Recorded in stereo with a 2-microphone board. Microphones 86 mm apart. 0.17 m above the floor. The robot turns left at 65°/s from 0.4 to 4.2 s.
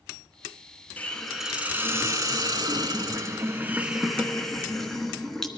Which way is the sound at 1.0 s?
25° left.